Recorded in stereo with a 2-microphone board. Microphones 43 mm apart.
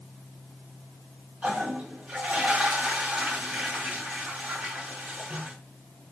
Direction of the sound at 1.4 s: 35° right (ahead or behind).